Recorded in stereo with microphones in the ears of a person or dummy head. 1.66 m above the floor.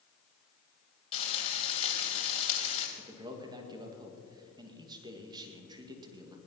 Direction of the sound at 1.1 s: 35° left (ahead or behind).